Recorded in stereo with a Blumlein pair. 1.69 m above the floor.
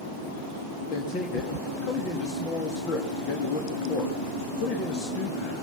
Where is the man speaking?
35° left, 3 m.